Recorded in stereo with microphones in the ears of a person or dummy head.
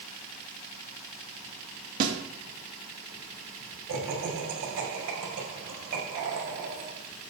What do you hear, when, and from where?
2.0 s a snare drum: 50° right (ahead or behind), 2.5 m
3.9 s laughter: 90° right, 5 m